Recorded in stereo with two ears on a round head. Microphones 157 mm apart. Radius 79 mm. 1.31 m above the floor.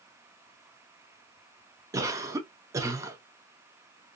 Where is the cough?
15° right (ahead or behind), 0.6 m.